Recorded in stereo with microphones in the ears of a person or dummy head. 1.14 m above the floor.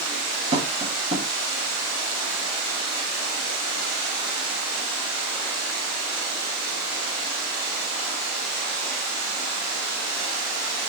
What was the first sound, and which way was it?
Tapping, 30° right (ahead or behind).